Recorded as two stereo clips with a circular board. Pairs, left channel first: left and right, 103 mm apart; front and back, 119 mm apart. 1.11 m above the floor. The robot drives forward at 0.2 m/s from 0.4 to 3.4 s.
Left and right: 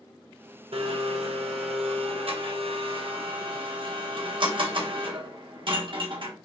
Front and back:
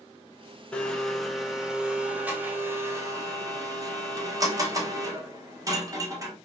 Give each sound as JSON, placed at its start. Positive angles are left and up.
{"t": 0.7, "sound": "a blender", "azimuth_deg": -80, "distance_m": 0.8}